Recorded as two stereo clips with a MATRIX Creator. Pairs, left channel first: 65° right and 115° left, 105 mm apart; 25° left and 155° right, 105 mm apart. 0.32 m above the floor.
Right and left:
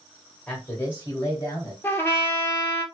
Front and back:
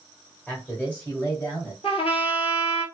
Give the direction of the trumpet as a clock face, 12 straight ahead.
12 o'clock.